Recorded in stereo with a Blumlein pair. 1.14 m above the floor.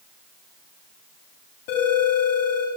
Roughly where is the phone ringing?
Ahead left.